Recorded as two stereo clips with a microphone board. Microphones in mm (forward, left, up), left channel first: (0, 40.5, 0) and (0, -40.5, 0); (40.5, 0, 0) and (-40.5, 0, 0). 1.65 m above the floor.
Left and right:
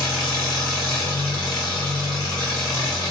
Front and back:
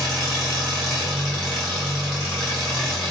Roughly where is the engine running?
Left.